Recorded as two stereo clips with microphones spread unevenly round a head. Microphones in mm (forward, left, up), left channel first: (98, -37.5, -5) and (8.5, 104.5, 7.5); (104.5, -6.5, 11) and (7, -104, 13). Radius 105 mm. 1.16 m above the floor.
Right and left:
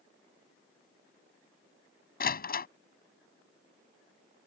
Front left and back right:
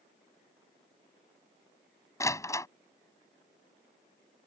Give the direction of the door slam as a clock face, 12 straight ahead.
1 o'clock.